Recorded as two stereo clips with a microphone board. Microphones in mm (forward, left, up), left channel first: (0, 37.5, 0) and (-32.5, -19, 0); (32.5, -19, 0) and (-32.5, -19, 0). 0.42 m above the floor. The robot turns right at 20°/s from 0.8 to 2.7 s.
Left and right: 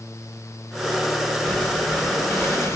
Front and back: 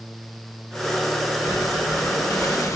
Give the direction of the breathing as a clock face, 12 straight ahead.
12 o'clock.